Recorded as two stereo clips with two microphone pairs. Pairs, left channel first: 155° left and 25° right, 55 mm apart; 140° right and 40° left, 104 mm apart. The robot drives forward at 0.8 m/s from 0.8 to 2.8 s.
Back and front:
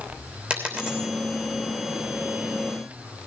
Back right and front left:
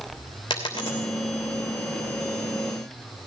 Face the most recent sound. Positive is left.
turn(degrees=-120)